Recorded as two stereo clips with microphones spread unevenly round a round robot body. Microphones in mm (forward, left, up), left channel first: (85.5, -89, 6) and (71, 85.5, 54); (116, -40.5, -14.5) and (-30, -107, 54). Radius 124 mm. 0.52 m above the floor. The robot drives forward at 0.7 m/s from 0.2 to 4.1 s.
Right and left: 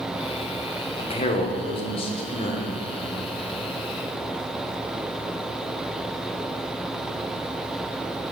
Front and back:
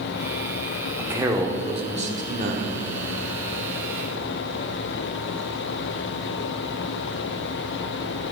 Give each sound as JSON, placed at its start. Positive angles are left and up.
{"t": 1.0, "sound": "a man speaking", "azimuth_deg": -60, "distance_m": 1.4}